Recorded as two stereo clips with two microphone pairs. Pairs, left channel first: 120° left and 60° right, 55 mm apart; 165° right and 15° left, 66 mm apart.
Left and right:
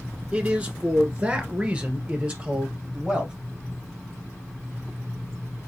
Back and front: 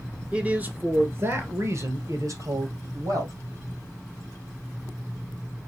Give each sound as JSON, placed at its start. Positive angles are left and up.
{"t": 0.3, "sound": "a man speaking", "azimuth_deg": -30, "distance_m": 1.4}